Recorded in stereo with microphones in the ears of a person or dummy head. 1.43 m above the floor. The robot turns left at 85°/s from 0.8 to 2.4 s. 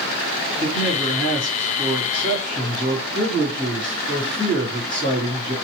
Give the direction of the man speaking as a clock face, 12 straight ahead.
3 o'clock.